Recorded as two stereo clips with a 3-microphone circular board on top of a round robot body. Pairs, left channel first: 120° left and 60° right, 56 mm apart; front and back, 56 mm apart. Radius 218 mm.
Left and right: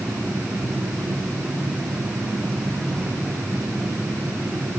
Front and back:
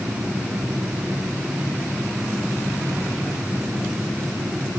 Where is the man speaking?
No man speaking in this recording.